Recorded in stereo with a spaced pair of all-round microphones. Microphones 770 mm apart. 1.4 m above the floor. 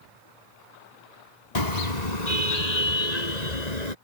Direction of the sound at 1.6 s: 60° left (ahead or behind).